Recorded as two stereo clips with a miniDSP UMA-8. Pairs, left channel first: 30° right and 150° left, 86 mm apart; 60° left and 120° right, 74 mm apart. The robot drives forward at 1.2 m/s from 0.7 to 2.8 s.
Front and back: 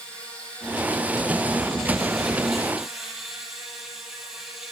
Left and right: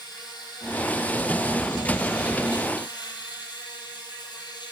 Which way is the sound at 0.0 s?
45° left.